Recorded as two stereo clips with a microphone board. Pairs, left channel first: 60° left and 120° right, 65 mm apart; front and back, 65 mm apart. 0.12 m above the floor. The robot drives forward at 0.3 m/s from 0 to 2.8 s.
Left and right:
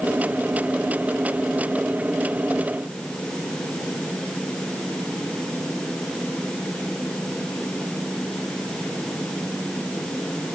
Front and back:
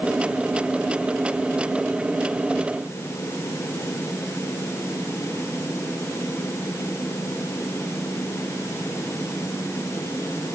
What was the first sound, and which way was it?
Only background noise.